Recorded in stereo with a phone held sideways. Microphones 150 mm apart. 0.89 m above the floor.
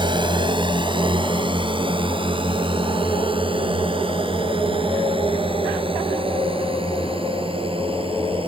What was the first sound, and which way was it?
A drone, 30° right (ahead or behind).